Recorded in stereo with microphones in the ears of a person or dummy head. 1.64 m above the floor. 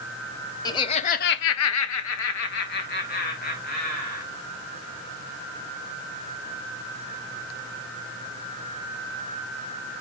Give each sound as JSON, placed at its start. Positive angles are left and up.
{"t": 0.7, "sound": "laughter", "side_deg": 20, "distance_m": 1.3}